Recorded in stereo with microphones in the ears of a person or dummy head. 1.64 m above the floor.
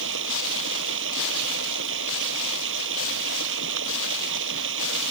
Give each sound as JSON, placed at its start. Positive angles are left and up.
{"t": 0.0, "sound": "running water", "side_deg": -65}